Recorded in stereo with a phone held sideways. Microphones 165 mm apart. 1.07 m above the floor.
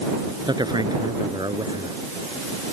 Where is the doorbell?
No doorbell in this recording.